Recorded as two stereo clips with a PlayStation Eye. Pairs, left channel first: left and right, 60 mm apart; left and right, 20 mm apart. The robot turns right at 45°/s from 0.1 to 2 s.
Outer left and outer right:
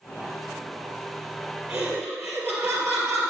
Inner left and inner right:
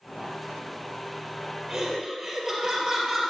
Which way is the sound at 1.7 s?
50° right (ahead or behind).